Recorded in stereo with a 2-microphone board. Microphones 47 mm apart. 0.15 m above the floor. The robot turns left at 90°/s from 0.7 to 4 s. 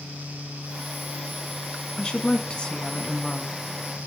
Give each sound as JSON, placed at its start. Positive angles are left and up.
{"t": 2.0, "sound": "a woman speaking", "side_deg": 15, "distance_m": 1.6}